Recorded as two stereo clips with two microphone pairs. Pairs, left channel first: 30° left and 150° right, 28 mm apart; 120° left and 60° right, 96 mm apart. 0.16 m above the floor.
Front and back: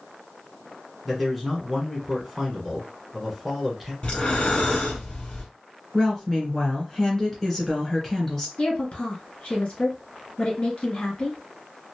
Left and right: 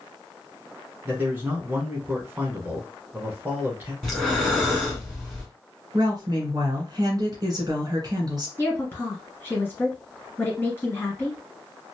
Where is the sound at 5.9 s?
45° right, 1.8 m.